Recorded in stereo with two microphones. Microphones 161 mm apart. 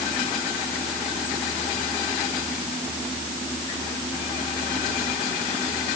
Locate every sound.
Only background noise.